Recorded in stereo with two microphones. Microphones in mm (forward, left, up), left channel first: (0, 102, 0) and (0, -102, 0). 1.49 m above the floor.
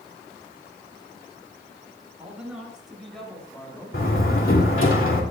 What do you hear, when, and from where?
2.2 s a man speaking: 5° right (ahead or behind), 7 m; by 4.9 s 20° left (ahead or behind), 4.5 m
3.9 s a door slam: 80° left, 2.5 m